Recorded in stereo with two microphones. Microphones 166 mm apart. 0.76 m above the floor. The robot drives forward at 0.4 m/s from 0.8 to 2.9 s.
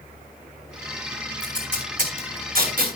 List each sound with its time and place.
1.4 s tape being pulled: 55° right (ahead or behind), 4 m; by 2.9 s 60° right (ahead or behind), 3.5 m